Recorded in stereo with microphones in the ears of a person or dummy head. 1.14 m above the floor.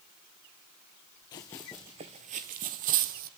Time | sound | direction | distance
1.3 | running footsteps | 20° left (ahead or behind) | 1.2 m